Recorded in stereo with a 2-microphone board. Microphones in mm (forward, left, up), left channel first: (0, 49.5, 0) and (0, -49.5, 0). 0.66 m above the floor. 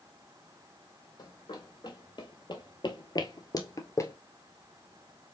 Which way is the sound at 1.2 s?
45° left (ahead or behind).